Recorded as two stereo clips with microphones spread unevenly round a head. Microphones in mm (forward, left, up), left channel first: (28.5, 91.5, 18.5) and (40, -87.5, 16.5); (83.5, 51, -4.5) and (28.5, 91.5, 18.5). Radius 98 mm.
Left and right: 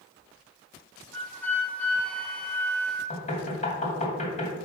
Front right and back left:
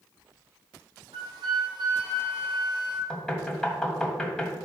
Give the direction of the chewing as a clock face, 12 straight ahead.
No chewing in this recording.